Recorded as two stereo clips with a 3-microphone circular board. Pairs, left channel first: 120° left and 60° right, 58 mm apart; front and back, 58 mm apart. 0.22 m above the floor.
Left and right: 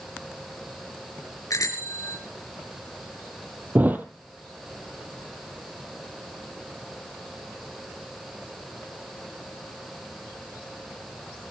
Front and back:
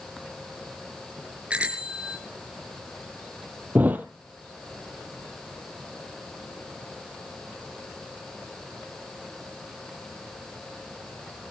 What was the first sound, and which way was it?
A bicycle bell, 110° left.